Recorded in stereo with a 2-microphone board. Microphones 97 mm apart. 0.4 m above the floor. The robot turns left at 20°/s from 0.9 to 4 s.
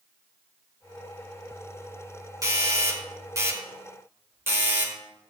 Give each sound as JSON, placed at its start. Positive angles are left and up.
{"t": 2.4, "sound": "a doorbell", "side_deg": -40, "distance_m": 2.0}